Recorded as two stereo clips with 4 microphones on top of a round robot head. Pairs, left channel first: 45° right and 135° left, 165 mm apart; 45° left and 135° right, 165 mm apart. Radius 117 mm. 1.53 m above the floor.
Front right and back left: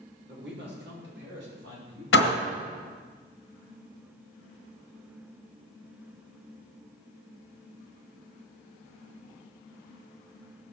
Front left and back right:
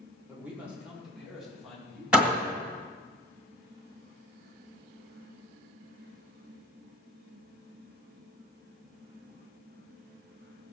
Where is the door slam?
50° right, 1.9 m.